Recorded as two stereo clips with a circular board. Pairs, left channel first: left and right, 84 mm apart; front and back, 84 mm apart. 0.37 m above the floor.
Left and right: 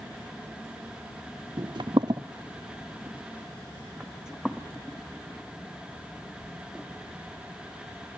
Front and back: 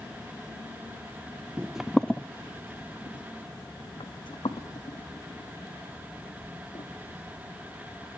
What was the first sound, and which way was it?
Footsteps, 105° right.